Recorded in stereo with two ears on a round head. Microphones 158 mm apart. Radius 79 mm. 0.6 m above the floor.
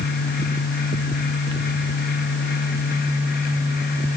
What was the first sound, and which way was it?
Only background noise.